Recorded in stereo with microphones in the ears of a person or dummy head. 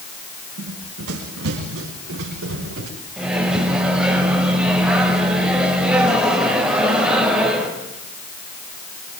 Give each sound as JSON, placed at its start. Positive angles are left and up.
{"t": 0.6, "sound": "running footsteps", "side_deg": -75, "distance_m": 5.0}
{"t": 3.2, "sound": "a microwave", "side_deg": -5, "distance_m": 5.0}